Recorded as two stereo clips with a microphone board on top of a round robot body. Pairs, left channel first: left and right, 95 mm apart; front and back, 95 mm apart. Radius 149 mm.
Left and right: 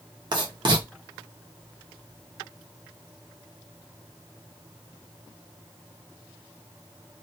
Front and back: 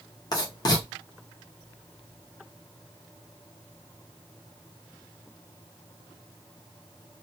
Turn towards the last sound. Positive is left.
turn(degrees=-50)